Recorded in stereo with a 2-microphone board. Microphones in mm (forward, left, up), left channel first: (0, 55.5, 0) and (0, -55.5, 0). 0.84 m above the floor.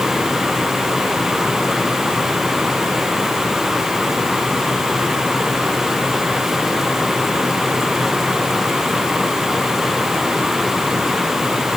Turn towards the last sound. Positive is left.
No sound to turn to.